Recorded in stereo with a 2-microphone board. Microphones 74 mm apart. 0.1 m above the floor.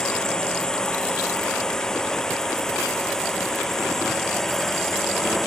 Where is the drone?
10° left (ahead or behind); by 5.5 s 5° left (ahead or behind).